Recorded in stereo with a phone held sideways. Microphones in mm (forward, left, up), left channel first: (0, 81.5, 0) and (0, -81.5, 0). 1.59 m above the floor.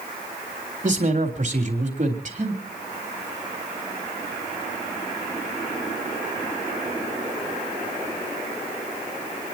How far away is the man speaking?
About 3.5 m.